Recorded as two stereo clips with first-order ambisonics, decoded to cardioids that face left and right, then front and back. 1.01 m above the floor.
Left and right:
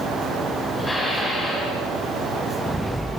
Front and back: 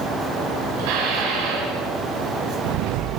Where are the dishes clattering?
170° left, 8.5 m.